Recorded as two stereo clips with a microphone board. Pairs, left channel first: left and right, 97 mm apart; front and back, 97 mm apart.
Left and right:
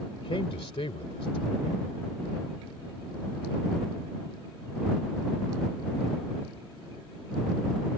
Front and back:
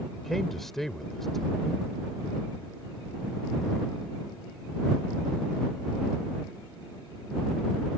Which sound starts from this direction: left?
A man speaking, at 0.1 s.